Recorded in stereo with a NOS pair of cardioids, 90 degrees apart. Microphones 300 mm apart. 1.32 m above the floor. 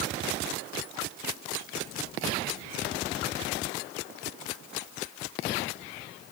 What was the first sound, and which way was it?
Only background noise.